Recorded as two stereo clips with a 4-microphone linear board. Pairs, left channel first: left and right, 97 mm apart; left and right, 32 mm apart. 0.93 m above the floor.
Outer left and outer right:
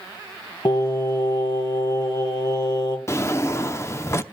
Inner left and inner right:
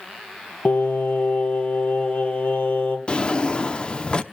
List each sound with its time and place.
0.7 s singing: 50° left (ahead or behind), 3 m
3.1 s a drawer: 30° left (ahead or behind), 0.6 m